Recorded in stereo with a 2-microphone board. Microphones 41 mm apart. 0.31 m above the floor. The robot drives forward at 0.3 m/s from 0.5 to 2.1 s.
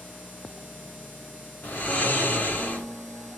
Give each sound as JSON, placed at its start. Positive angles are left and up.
{"t": 1.6, "sound": "snoring", "side_deg": 50, "distance_m": 2.0}